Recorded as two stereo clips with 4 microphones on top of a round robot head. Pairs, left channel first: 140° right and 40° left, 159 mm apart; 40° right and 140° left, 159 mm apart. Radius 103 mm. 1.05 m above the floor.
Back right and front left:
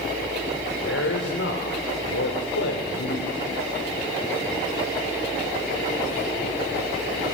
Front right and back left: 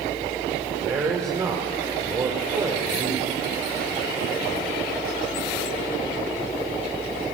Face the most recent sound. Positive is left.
turn(degrees=-145)